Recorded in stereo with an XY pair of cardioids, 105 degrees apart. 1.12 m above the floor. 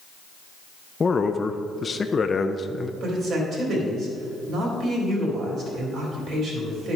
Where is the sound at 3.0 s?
60° right, 3 m.